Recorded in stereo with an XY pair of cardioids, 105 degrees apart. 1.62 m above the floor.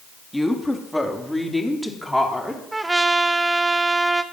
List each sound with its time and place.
0.3 s a woman speaking: 5° left, 2.5 m; by 2.6 s straight ahead, 4 m
2.7 s a trumpet: 20° right, 1.1 m